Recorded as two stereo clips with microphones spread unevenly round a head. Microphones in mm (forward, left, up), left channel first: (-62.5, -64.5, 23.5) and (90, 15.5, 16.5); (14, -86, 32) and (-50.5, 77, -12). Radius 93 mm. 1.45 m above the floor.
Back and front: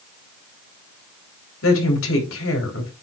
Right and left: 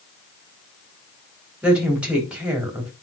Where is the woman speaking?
165° right, 4 m.